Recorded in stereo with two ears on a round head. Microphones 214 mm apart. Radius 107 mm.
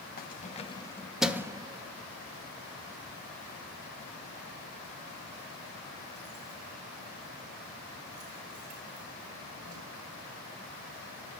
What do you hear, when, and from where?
0.2 s keys jangling: 40° left (ahead or behind), 1.2 m; by 9.8 s 75° right (ahead or behind), 7 m